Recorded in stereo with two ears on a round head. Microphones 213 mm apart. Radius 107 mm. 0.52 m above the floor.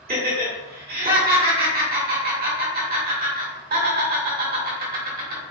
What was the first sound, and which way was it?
Laughter, 45° right (ahead or behind).